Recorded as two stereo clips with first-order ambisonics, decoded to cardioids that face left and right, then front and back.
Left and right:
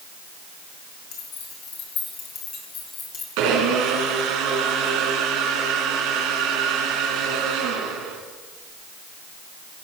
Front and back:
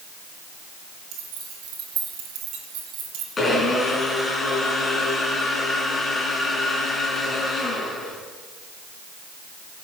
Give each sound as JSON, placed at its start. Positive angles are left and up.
{"t": 1.1, "sound": "keys jangling", "azimuth_deg": 135, "distance_m": 6.0}
{"t": 3.4, "sound": "a blender", "azimuth_deg": -75, "distance_m": 3.5}